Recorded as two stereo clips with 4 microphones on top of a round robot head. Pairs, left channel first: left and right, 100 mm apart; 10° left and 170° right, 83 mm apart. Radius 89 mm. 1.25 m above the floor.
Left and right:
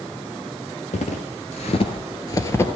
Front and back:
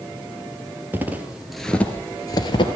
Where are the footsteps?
130° left, 2 m; by 2.7 s 25° left, 1.9 m.